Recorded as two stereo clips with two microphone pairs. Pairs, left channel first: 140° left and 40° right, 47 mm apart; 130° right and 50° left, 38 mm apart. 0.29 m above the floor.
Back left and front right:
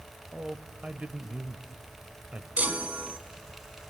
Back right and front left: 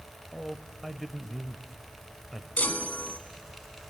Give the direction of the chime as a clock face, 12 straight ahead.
3 o'clock.